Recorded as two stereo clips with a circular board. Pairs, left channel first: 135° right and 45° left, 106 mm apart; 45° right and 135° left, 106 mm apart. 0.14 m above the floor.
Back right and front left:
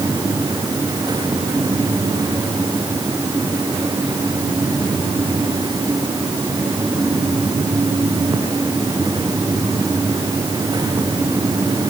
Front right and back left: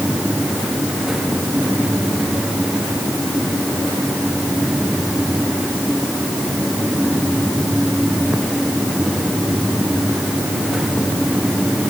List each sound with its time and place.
Only background noise.